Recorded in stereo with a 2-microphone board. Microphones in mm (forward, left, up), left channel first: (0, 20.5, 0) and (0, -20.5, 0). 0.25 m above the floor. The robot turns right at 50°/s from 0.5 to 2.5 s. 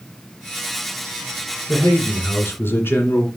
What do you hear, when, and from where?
1.7 s a man speaking: 55° left, 2.5 m; by 3.3 s 95° left, 2.5 m